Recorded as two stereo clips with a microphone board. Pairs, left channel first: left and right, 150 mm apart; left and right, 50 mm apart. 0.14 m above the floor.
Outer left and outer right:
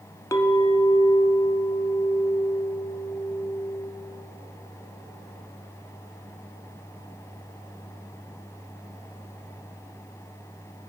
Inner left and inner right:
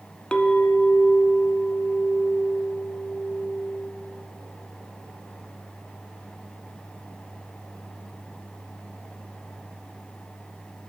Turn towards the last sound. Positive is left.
turn(degrees=20)  # may be behind; listen again after turning